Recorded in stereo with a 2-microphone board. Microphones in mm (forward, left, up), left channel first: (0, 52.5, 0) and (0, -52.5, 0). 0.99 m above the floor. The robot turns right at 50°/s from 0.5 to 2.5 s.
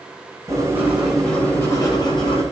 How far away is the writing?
About 9 m.